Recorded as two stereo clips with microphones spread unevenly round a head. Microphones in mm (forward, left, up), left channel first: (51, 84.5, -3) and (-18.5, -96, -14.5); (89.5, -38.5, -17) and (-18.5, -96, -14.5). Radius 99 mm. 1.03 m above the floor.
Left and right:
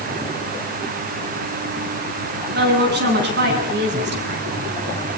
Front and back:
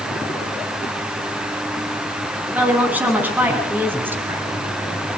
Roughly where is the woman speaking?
Right.